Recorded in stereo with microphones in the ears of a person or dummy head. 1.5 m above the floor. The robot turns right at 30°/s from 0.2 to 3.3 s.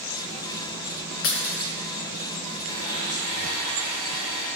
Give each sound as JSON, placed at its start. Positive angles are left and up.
{"t": 1.2, "sound": "breaking glass", "side_deg": 55, "distance_m": 2.5}
{"t": 2.7, "sound": "a blender", "side_deg": -20, "distance_m": 6.0}